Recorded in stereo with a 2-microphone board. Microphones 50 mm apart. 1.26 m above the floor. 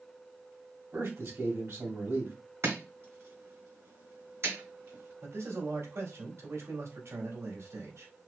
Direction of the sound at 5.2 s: 65° right (ahead or behind).